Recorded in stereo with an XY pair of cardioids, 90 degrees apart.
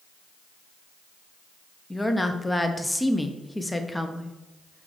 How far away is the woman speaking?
About 0.8 m.